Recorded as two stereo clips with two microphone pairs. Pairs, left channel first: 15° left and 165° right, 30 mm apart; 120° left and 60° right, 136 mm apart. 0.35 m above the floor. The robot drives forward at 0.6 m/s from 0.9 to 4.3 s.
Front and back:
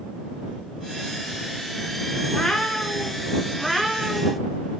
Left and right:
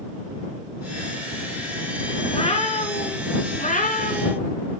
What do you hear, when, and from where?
2.3 s a cat meowing: 75° left, 2 m; by 4.5 s 105° left, 2 m